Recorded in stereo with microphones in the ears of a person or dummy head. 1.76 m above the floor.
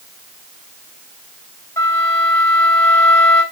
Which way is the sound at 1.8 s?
20° left (ahead or behind).